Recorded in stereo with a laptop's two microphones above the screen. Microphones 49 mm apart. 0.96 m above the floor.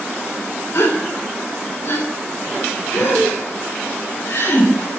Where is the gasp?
70° left (ahead or behind), 3.5 m.